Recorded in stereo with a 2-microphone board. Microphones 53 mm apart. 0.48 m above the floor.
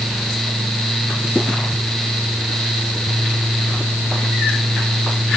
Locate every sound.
Only background noise.